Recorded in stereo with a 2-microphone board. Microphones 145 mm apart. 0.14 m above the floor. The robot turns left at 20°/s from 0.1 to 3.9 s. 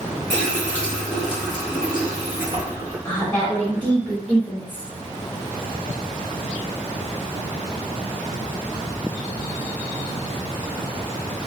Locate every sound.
0.3 s a running tap: 25° left, 1.4 m; by 3.0 s 30° right, 1.4 m
3.0 s a woman speaking: 20° left (ahead or behind), 1.6 m; by 4.9 s 15° left (ahead or behind), 1.6 m